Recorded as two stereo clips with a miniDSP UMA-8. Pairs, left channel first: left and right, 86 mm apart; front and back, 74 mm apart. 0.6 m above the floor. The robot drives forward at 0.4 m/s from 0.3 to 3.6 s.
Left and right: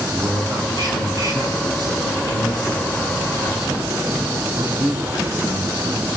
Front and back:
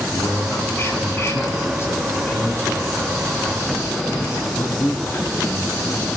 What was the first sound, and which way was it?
A man speaking, 55° right.